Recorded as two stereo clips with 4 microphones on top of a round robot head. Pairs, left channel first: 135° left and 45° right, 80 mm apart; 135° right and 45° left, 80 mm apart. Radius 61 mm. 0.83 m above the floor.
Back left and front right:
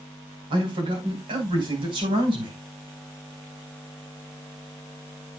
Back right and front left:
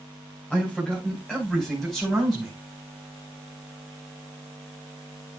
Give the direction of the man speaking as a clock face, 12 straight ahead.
2 o'clock.